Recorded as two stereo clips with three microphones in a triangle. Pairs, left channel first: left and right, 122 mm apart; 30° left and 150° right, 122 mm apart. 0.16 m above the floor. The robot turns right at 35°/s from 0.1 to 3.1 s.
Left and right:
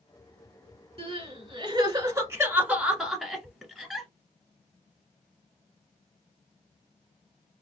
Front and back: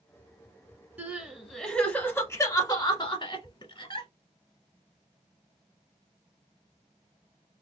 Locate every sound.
1.0 s crying: 75° right, 1.1 m; by 4.1 s straight ahead, 1.1 m